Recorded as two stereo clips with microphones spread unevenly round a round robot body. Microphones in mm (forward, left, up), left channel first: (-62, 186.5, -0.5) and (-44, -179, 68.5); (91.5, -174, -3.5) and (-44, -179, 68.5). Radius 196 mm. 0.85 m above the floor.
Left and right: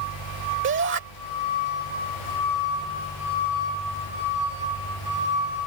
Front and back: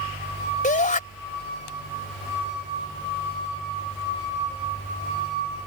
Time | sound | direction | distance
0.6 | a shout | 25° right | ?